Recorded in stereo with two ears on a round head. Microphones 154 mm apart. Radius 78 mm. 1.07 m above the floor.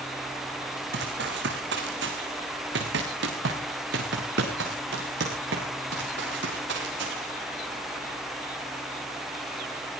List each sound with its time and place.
0.9 s running footsteps: 70° right (ahead or behind), 3.5 m